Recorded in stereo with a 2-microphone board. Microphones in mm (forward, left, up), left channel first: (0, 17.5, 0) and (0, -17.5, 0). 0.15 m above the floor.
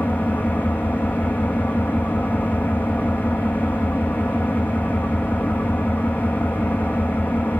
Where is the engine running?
55° left (ahead or behind), 3.5 m.